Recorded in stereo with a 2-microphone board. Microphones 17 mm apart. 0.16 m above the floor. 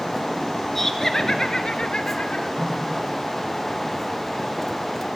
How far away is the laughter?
About 2 m.